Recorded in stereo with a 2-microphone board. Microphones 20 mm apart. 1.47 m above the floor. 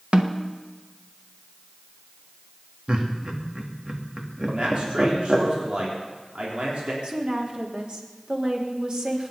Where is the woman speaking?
55° right (ahead or behind), 3.5 m.